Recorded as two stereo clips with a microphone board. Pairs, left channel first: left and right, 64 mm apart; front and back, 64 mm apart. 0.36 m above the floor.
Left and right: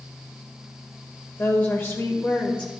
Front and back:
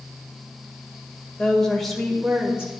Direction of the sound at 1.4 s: 70° left.